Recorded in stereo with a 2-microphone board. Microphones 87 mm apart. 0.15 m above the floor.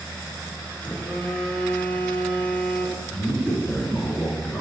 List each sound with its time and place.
0.8 s a phone buzzing: 15° left (ahead or behind), 1.3 m
3.1 s a man speaking: 10° left (ahead or behind), 2 m